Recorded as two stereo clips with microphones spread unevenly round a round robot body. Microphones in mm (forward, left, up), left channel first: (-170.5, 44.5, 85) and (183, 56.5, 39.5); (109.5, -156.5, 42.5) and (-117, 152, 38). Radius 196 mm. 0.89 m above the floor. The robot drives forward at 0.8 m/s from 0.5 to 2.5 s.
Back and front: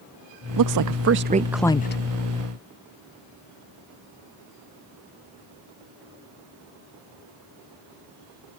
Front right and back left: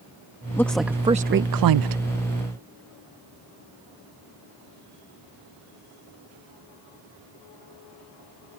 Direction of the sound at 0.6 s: 30° left.